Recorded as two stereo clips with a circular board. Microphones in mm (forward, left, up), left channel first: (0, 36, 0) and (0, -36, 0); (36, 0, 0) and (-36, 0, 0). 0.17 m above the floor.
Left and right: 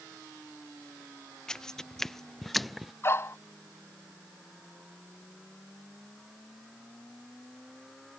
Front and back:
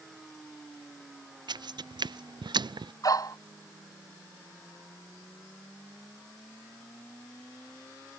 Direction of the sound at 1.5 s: 170° left.